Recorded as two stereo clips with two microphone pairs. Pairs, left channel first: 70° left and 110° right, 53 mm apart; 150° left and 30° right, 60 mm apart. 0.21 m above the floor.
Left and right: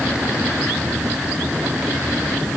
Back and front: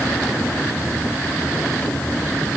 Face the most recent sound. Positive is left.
No sound to turn to.